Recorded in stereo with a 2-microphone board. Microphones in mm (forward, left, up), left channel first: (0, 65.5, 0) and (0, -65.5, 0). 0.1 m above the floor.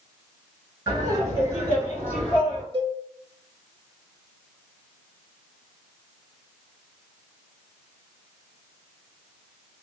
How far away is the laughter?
About 1.9 m.